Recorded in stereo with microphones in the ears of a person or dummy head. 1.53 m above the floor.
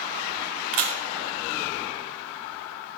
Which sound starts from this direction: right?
A camera shutter, at 0.7 s.